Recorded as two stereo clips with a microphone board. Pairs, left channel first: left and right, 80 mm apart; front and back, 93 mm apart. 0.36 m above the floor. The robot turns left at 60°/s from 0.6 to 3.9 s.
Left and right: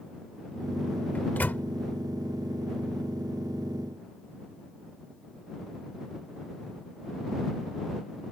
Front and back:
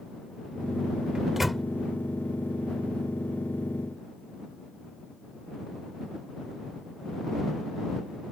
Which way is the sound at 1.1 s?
115° left.